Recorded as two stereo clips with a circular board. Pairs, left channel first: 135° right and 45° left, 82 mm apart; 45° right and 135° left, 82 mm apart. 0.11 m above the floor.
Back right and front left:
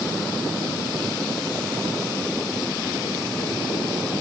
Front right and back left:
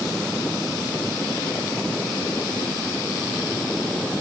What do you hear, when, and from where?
Only background noise.